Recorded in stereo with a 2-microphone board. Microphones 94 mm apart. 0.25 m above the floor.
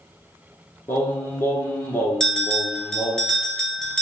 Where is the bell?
5° left (ahead or behind), 0.9 m.